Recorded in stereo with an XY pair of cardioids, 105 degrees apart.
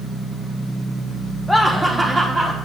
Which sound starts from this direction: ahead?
Laughter, at 1.5 s.